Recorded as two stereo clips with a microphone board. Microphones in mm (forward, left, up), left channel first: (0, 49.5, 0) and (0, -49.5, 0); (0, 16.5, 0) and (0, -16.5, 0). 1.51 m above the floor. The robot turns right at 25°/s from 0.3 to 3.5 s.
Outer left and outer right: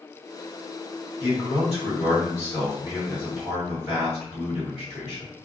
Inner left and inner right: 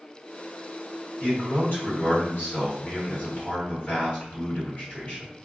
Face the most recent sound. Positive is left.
turn(degrees=120)